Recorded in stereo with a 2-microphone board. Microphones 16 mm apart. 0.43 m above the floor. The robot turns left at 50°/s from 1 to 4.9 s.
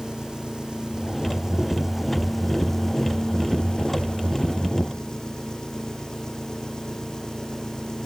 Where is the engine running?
115° right; by 8.1 s 50° left.